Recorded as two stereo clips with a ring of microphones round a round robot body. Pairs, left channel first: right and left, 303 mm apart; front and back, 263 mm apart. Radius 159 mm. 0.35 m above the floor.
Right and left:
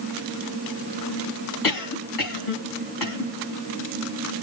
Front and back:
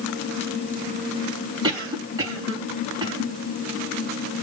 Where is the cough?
105° right, 3.5 m.